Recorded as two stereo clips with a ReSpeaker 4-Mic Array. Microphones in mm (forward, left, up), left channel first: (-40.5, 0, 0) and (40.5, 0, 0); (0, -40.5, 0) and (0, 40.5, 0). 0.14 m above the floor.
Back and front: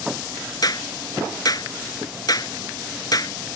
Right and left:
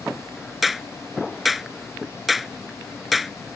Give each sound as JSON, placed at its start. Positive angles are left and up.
{"t": 0.6, "sound": "a clap", "azimuth_deg": 180}